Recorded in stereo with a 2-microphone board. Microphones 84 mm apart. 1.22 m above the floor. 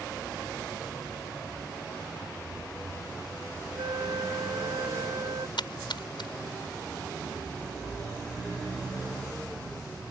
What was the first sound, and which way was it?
A flute, 80° right.